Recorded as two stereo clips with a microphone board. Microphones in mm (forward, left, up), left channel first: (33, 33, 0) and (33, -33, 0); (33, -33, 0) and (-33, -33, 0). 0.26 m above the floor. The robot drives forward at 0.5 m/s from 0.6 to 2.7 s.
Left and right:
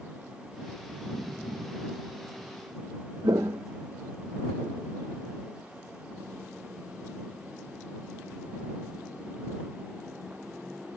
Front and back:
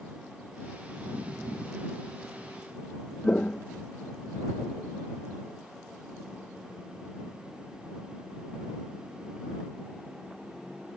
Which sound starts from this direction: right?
Footsteps, at 3.2 s.